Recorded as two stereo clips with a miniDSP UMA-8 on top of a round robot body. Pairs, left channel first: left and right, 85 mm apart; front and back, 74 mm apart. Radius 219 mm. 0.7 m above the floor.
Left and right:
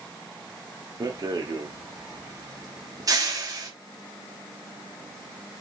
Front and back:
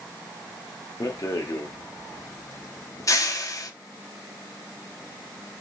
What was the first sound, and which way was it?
A rattle, 45° right.